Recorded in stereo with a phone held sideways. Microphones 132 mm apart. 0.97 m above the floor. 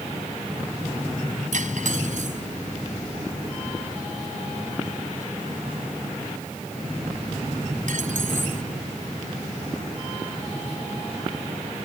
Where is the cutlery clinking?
70° right (ahead or behind).